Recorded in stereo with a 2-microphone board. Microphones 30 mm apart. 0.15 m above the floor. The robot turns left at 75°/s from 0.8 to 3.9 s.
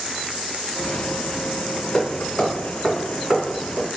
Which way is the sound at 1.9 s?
25° left (ahead or behind).